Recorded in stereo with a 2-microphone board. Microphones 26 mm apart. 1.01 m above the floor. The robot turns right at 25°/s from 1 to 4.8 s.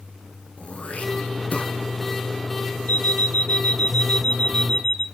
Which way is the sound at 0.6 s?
55° left (ahead or behind).